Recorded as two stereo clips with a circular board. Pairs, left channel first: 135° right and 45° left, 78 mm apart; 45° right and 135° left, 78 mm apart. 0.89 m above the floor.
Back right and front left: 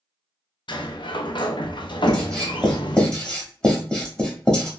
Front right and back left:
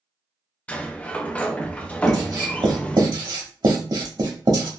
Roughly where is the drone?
I don't hear a drone.